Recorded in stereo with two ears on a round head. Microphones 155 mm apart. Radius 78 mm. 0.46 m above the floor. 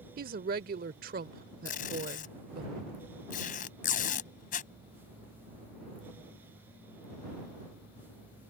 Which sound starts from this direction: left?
Tape being pulled, at 1.6 s.